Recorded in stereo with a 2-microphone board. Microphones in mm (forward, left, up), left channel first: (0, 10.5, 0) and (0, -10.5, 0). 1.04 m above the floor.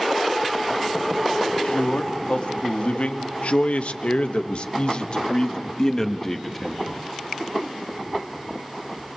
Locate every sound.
1.5 s a man speaking: 55° left (ahead or behind), 3 m; by 6.8 s 15° left (ahead or behind), 2 m